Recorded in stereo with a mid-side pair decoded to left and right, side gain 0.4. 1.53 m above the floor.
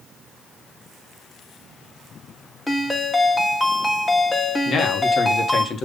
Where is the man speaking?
55° left, 1.6 m.